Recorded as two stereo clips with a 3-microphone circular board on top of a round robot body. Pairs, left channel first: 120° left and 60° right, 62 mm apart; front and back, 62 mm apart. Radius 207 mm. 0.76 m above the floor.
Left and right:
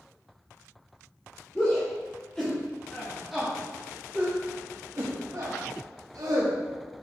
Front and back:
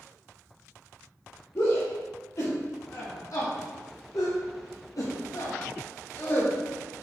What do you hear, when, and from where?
1.6 s a shout: 45° left, 2.5 m; by 7.0 s 70° right, 1.7 m